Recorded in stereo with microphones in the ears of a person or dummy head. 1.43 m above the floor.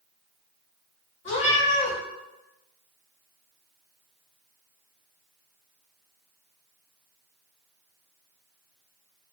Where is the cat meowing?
40° left (ahead or behind), 1.8 m.